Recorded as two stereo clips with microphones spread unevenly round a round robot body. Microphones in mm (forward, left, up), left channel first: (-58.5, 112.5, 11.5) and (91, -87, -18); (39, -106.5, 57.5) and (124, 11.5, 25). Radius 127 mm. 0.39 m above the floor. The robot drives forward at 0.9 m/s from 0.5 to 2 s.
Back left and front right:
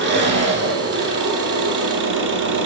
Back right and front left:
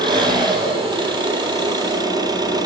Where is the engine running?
5° right, 5 m; by 2.7 s 10° right, 3.5 m.